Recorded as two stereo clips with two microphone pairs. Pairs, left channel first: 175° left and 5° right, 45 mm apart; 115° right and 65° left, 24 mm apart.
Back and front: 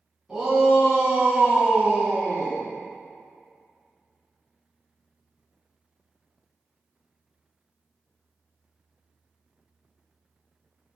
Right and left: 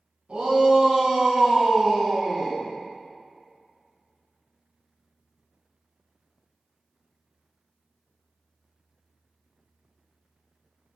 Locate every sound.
0.3 s a shout: 75° left, 2.0 m; by 2.6 s 35° right, 1.8 m